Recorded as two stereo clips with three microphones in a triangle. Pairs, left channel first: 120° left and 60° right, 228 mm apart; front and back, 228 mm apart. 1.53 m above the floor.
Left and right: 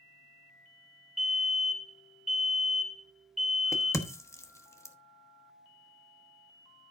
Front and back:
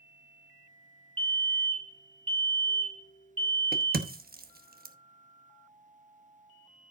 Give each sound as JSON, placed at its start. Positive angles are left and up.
{"t": 1.2, "sound": "a fire alarm", "azimuth_deg": -115, "distance_m": 1.0}
{"t": 3.7, "sound": "a crack", "azimuth_deg": -170, "distance_m": 1.1}